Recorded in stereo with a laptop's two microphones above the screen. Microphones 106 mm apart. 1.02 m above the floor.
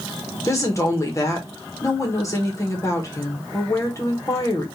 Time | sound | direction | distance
0.5 | a woman speaking | 30° left (ahead or behind) | 1.2 m